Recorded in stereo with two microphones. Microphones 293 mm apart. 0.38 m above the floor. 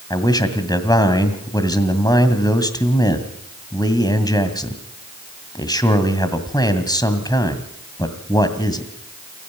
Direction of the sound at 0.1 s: 15° left (ahead or behind).